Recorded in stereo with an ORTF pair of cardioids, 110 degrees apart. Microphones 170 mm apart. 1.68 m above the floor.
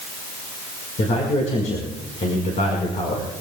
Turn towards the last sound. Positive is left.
turn(degrees=45)